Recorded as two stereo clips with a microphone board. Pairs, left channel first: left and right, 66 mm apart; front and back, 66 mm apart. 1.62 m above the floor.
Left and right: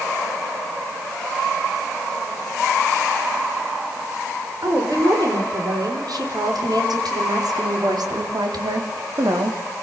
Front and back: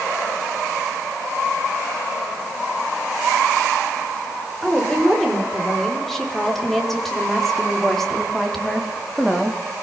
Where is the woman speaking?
85° right, 7.5 m; by 9.6 s 90° right, 4 m.